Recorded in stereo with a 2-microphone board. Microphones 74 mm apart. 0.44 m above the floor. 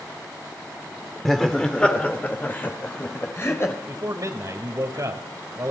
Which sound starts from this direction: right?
A man speaking, at 3.9 s.